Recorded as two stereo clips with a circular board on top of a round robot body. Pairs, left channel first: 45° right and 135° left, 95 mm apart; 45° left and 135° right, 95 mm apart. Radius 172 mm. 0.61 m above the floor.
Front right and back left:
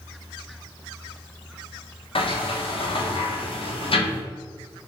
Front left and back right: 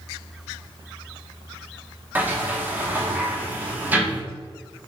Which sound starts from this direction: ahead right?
A sliding door, at 2.1 s.